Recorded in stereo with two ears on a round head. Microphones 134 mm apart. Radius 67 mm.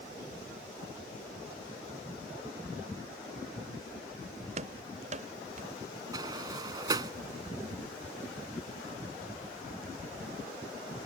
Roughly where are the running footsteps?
Right.